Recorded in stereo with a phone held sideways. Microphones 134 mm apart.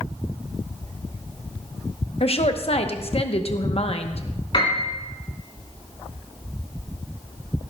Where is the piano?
40° left (ahead or behind), 3.5 m.